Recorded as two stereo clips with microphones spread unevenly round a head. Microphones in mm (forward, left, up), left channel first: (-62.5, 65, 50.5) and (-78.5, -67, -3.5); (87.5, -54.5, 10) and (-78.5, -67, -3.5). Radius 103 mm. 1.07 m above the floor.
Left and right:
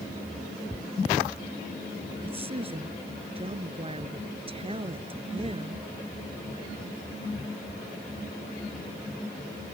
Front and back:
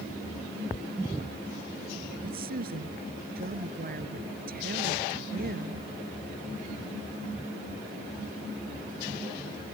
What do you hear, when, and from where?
2.2 s a woman speaking: 145° right